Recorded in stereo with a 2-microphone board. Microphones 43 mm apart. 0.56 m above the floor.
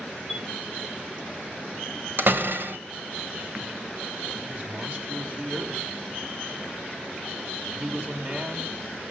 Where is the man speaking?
40° right (ahead or behind), 4.5 m.